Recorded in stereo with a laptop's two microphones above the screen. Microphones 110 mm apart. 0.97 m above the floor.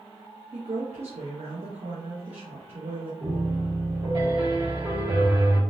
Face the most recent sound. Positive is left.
turn(degrees=-50)  # may be behind; listen again after turning